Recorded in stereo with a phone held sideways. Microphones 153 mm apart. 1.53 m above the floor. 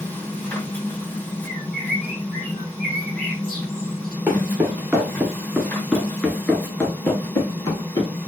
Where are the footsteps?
15° right (ahead or behind), 1.8 m; by 8.1 s 25° left (ahead or behind), 2.0 m.